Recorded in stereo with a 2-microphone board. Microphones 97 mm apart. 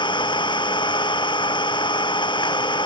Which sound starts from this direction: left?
An engine running, at 0.0 s.